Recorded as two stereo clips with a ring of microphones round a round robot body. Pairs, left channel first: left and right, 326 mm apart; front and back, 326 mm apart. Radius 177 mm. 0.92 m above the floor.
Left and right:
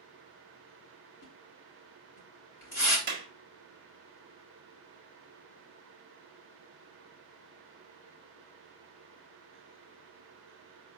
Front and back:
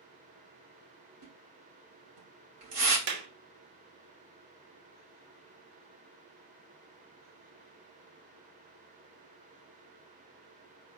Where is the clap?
160° right, 1.0 m.